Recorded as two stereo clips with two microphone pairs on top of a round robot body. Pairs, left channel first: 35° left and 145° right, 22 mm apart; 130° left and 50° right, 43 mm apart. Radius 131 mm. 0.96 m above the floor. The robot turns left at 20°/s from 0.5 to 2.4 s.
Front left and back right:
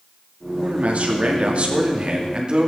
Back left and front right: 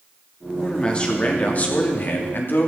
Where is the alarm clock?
I don't hear an alarm clock.